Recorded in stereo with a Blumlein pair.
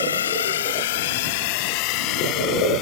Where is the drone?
65° left; by 2.8 s 35° left.